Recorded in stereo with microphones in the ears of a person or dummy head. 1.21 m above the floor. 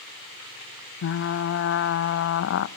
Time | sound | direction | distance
1.0 | frying | 70° left (ahead or behind) | 0.7 m